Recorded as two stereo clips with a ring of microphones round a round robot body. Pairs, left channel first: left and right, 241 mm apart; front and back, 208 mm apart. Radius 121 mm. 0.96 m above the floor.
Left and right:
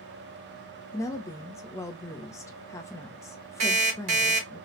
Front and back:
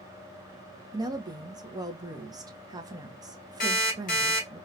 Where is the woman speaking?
145° left, 0.6 m.